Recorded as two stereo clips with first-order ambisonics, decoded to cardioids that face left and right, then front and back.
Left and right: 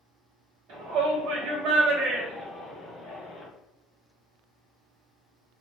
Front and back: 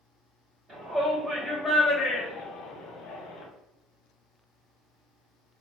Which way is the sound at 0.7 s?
115° right.